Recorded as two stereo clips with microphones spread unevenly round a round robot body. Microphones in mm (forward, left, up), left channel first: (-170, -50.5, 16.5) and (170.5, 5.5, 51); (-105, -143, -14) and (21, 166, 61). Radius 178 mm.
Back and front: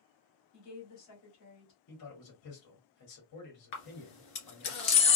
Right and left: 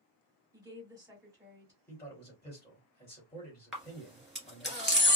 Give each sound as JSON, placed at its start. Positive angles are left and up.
{"t": 0.5, "sound": "a woman speaking", "azimuth_deg": 155, "distance_m": 2.5}
{"t": 1.9, "sound": "a man speaking", "azimuth_deg": 175, "distance_m": 2.0}
{"t": 3.7, "sound": "a camera shutter", "azimuth_deg": 155, "distance_m": 1.9}